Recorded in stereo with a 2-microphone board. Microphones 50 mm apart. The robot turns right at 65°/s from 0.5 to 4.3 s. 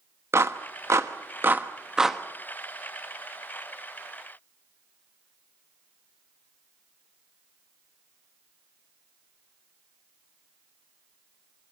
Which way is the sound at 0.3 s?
65° right (ahead or behind).